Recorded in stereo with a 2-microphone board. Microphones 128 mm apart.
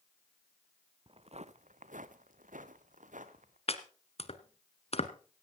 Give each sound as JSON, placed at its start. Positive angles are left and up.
{"t": 1.1, "sound": "footsteps", "side_deg": -45, "distance_m": 0.8}
{"t": 3.7, "sound": "chopping", "side_deg": 50, "distance_m": 1.3}